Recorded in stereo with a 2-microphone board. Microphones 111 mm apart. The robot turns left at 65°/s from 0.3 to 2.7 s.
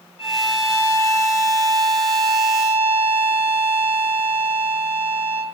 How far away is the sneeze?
No sneeze in this recording.